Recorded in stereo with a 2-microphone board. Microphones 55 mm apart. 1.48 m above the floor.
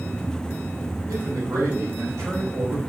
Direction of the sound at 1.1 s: 70° right (ahead or behind).